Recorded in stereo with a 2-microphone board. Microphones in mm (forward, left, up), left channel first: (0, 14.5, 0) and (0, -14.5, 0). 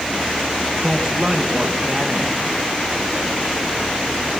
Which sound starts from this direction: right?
A woman speaking, at 0.8 s.